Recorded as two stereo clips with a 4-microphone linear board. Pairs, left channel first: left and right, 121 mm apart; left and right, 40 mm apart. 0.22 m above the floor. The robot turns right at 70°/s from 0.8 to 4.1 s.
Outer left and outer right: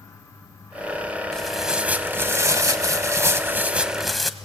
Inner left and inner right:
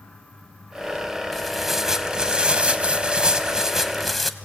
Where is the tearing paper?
5° left (ahead or behind), 0.9 m; by 4.3 s centre (ahead or behind), 0.9 m.